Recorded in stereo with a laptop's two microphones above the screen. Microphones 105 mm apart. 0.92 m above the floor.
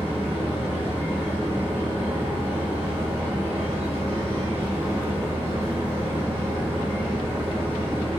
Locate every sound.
0.0 s a machine running: 70° right (ahead or behind), 1.1 m